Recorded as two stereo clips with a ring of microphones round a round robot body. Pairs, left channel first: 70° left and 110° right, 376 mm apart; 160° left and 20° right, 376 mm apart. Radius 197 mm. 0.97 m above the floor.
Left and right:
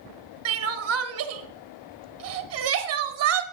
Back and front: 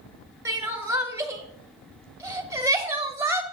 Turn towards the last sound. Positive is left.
turn(degrees=-100)